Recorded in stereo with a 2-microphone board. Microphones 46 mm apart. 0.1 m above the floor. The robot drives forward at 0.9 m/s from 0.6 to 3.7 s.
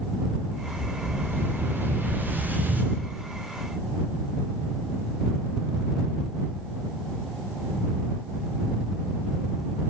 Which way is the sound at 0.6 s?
55° right (ahead or behind).